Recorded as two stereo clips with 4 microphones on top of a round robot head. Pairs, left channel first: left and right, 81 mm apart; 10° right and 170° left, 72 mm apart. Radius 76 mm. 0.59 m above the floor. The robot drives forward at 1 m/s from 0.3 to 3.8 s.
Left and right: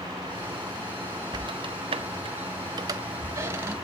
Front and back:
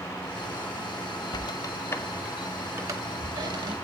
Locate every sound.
1.3 s a squeak: 45° right, 1.2 m; by 3.8 s 155° right, 1.8 m